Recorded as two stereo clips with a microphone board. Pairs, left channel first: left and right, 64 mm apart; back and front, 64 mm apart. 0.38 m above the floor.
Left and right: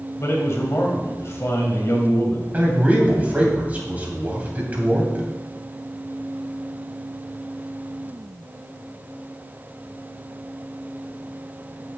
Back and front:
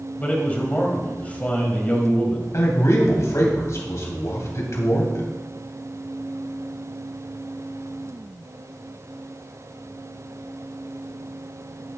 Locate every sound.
0.2 s a man speaking: 120° left, 2 m
2.5 s a man speaking: 150° right, 3 m